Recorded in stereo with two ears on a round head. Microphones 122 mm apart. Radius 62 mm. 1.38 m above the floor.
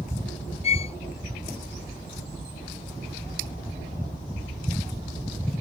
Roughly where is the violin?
Left.